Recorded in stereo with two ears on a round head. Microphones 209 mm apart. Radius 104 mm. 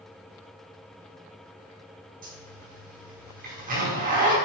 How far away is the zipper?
About 5.5 m.